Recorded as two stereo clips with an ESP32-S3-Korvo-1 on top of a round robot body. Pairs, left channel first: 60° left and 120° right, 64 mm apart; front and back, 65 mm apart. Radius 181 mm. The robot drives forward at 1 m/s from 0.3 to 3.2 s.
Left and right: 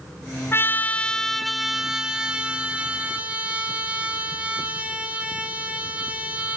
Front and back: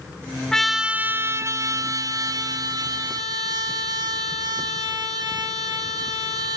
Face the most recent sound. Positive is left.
turn(degrees=170)